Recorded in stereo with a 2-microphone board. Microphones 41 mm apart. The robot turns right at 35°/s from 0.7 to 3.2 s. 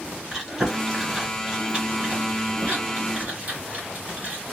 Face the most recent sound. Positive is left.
turn(degrees=-40)  # may be behind; listen again after turning